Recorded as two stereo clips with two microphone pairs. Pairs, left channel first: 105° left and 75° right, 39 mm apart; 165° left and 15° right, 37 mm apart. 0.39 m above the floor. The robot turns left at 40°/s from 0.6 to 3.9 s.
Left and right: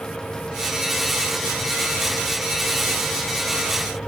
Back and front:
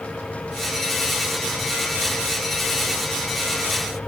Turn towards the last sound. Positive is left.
No sound to turn to.